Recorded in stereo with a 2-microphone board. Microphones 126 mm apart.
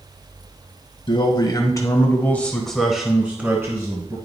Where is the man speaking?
40° left (ahead or behind), 1.6 m; by 4.2 s 30° right (ahead or behind), 1.8 m.